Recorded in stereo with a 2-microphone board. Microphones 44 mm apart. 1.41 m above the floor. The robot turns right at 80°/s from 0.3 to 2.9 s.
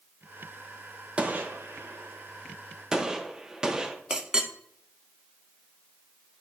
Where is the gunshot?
25° right (ahead or behind), 0.8 m; by 4.0 s 15° right (ahead or behind), 0.8 m.